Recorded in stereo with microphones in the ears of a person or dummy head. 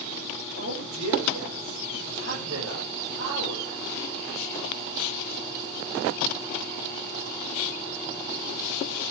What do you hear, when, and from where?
0.6 s a man speaking: 65° right (ahead or behind), 7.5 m